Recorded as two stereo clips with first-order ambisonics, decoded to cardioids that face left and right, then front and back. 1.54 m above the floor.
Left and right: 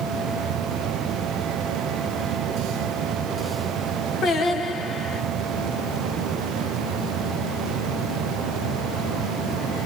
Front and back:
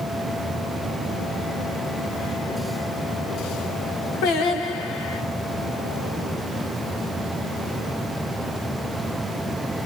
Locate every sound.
4.2 s singing: 25° left, 1.5 m